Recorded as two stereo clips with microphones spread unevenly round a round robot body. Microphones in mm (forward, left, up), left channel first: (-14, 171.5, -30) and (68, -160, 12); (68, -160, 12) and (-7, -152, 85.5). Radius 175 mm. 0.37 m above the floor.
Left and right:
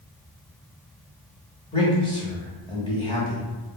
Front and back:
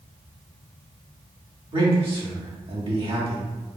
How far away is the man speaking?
About 0.8 m.